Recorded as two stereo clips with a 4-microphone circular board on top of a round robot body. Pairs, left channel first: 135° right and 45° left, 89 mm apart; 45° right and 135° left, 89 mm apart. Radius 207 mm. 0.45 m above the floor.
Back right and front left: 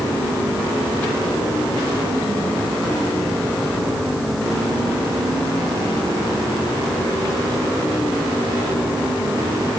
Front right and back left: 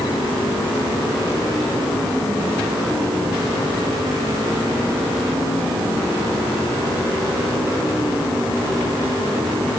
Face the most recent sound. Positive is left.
No sound to turn to.